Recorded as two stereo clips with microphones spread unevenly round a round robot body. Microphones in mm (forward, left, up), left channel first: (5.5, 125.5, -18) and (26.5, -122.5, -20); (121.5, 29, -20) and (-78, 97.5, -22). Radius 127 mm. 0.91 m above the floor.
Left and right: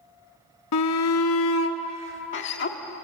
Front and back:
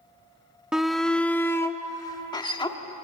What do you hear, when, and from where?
0.7 s a shout: 75° left, 1.1 m; by 2.8 s 50° left, 1.9 m